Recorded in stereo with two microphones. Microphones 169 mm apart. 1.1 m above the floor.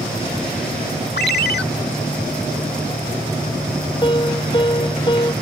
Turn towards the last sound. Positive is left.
turn(degrees=30)  # may be behind; listen again after turning